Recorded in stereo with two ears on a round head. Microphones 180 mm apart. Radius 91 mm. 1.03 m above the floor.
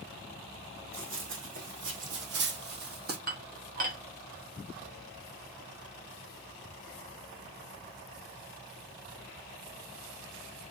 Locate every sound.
0.9 s running footsteps: 70° right (ahead or behind), 2.5 m; by 3.2 s 50° right (ahead or behind), 1.9 m
3.3 s dishes clattering: 45° right (ahead or behind), 1.4 m